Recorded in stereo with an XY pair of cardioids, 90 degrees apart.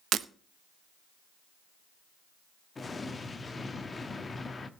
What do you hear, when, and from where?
0.1 s breaking glass: 70° right, 0.7 m
2.8 s an explosion: 35° left, 1.3 m